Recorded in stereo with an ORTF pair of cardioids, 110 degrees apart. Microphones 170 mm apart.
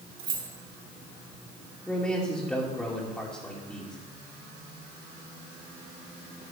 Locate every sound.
0.2 s keys jangling: 55° right, 3 m
1.9 s a man speaking: 5° left, 2.5 m